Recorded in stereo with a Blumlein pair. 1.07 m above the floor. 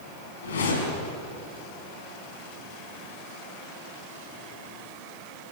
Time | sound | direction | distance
0.4 | a whoosh | 65° left | 5 m